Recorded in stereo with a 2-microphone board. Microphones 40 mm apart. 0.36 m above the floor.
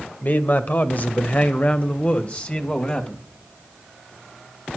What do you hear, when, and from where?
0.2 s a man speaking: 45° left (ahead or behind), 1.5 m; by 3.3 s 30° left (ahead or behind), 2 m